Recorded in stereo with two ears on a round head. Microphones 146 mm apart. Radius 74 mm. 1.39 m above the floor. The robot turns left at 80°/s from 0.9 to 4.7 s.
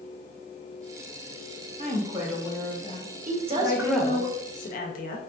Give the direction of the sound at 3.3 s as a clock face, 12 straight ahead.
4 o'clock.